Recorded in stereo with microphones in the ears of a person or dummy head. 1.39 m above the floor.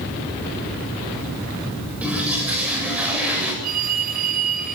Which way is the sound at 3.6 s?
55° right (ahead or behind).